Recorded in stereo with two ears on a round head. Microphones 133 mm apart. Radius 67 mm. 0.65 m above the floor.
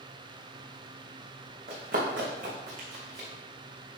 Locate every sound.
1.7 s running footsteps: 65° right (ahead or behind), 3 m; by 3.3 s 50° right (ahead or behind), 3.5 m